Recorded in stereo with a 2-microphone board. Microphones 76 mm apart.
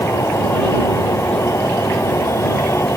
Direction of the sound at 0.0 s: 40° left (ahead or behind).